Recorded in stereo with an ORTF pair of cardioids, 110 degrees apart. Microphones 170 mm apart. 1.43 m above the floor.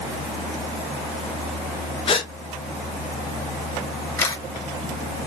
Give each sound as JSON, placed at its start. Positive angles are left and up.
{"t": 2.1, "sound": "a gasp", "azimuth_deg": 35, "distance_m": 1.0}
{"t": 4.2, "sound": "a camera shutter", "azimuth_deg": 20, "distance_m": 2.0}